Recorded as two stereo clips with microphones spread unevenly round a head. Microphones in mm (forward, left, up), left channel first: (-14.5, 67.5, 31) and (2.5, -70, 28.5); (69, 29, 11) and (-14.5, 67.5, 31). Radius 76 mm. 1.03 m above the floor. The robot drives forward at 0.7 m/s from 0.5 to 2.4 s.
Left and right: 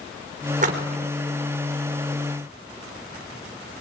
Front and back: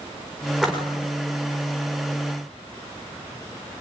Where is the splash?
115° right, 4 m; by 1.1 s 120° right, 4 m.